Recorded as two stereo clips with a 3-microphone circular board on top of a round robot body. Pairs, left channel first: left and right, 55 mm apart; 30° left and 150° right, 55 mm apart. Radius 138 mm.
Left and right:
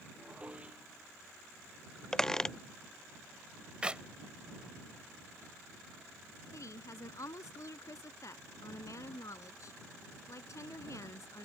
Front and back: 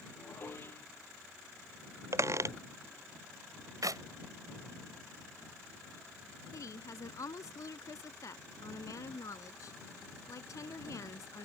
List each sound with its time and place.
0.2 s dishes clattering: 20° right
2.1 s a squeak: 170° left
3.8 s a clap: 165° right
6.5 s a woman speaking: 60° left